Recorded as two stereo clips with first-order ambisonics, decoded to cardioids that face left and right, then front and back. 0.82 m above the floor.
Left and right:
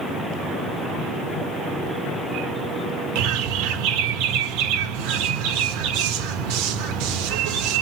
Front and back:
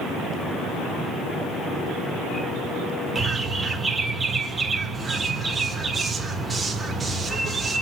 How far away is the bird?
About 1.0 m.